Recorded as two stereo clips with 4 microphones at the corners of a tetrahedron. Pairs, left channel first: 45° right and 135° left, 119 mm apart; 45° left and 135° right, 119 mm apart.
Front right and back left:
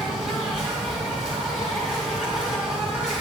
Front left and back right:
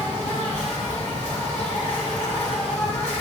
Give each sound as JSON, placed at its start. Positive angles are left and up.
{"t": 0.0, "sound": "an insect", "azimuth_deg": 50, "distance_m": 5.0}